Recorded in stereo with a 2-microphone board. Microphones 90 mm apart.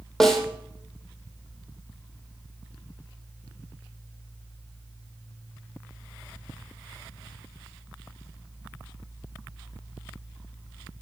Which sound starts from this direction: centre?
A snare drum, at 0.2 s.